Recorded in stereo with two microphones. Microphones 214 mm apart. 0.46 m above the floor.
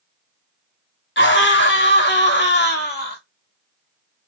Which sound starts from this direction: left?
A scream, at 1.2 s.